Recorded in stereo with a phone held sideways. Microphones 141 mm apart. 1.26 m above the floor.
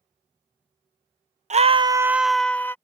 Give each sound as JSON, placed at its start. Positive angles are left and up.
{"t": 1.5, "sound": "a scream", "side_deg": -55}